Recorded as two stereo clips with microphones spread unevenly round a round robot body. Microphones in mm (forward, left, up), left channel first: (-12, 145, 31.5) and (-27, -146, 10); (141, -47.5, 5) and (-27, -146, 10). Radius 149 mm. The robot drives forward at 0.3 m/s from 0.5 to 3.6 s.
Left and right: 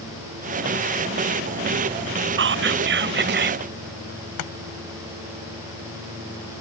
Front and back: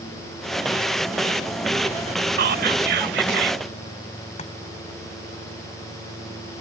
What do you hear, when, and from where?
2.4 s whispering: 130° right; by 3.6 s 140° right
4.4 s chopping: 95° left